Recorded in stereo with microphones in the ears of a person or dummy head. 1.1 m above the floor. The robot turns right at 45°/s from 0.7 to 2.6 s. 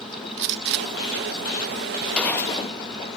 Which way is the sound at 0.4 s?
60° right (ahead or behind).